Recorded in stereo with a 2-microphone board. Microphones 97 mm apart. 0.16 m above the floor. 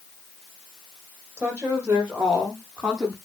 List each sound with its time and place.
1.4 s a woman speaking: 15° right (ahead or behind), 7 m; by 3.1 s 5° right (ahead or behind), 8 m